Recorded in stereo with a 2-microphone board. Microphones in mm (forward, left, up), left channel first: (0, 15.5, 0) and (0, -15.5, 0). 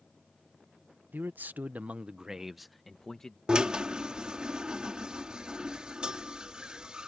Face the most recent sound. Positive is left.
turn(degrees=-30)  # may be behind; listen again after turning